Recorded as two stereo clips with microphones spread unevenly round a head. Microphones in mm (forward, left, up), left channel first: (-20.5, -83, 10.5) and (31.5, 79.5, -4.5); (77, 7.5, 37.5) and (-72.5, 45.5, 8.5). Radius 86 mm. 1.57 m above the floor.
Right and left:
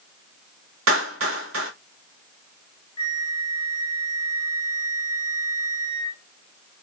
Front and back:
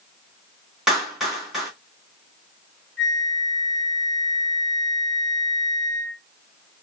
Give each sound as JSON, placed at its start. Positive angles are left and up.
{"t": 0.9, "sound": "a clap", "azimuth_deg": 75, "distance_m": 1.9}
{"t": 3.0, "sound": "a flute", "azimuth_deg": -80, "distance_m": 1.3}